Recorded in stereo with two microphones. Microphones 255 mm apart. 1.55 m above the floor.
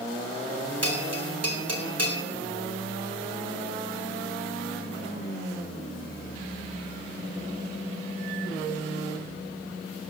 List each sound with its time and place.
0.8 s a bell: 75° right (ahead or behind), 2.5 m